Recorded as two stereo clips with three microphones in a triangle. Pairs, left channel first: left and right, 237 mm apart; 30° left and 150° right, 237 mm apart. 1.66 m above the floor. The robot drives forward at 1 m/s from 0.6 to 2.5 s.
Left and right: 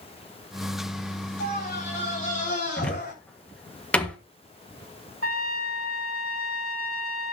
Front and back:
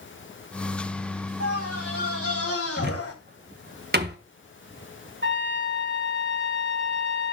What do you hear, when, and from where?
1.4 s a scream: 35° left, 5 m; by 3.1 s 45° left, 4.5 m
2.8 s a cupboard door: 175° left, 1.5 m
5.2 s a trumpet: 110° right, 2.5 m